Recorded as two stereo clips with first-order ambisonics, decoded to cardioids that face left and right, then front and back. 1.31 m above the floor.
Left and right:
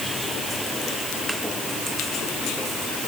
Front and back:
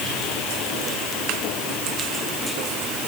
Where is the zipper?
No zipper in this recording.